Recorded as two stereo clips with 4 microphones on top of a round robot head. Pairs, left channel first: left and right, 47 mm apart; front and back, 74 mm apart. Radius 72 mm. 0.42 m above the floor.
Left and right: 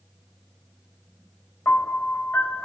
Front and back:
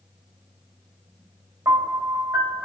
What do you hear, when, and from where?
1.6 s a piano: 130° left, 3 m